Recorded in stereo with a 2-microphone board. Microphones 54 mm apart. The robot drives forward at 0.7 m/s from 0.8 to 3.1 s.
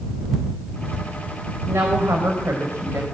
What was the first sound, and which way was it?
A woman speaking, 60° right (ahead or behind).